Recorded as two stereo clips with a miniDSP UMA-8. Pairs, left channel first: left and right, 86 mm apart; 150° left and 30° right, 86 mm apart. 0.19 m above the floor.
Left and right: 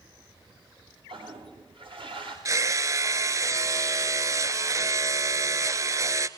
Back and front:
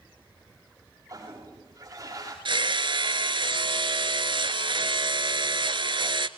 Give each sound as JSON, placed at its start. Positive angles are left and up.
{"t": 1.1, "sound": "a toilet flushing", "azimuth_deg": -80, "distance_m": 8.0}
{"t": 2.5, "sound": "hammering", "azimuth_deg": -40, "distance_m": 0.9}